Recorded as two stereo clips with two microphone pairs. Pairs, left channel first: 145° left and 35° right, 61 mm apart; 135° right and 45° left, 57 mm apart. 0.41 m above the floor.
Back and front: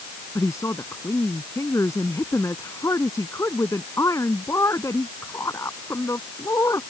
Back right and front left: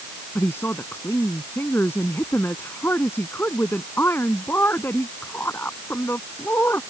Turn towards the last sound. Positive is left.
turn(degrees=180)